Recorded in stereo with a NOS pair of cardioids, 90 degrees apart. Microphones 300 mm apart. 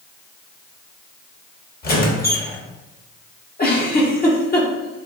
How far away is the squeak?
About 1.4 m.